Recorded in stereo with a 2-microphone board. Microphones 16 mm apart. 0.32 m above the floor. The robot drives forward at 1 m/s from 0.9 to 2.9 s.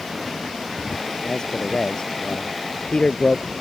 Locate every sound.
1.2 s a man speaking: 45° left (ahead or behind); by 3.5 s 55° left (ahead or behind)